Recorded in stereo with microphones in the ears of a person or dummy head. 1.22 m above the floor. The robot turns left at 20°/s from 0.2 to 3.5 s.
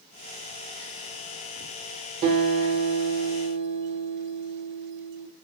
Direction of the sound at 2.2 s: 50° right (ahead or behind).